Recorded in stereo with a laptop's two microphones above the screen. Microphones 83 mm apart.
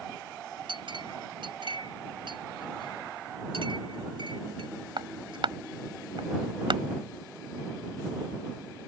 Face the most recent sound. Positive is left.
turn(degrees=-85)